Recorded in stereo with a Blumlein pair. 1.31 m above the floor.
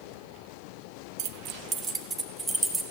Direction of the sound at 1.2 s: 45° right.